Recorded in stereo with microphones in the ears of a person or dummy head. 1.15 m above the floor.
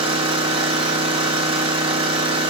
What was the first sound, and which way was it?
An engine running, 25° right (ahead or behind).